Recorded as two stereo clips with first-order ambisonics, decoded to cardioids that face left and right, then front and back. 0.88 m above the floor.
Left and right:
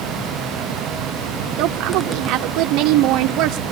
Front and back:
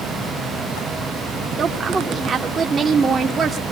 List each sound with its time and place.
1.6 s a woman speaking: 115° right, 0.8 m